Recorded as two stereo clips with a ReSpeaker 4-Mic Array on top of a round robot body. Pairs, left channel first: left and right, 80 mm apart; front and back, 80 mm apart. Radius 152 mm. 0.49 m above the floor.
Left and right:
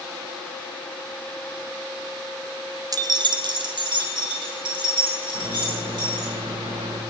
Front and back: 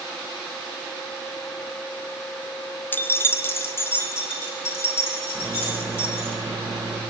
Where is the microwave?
115° right, 3 m.